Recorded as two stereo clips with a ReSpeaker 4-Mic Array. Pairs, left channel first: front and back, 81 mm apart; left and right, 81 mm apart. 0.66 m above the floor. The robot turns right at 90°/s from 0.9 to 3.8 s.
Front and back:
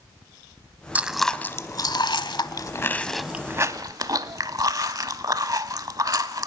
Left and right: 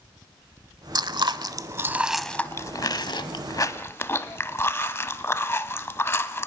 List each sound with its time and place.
0.9 s chewing: 110° right, 1.0 m; by 6.5 s 145° left, 1.0 m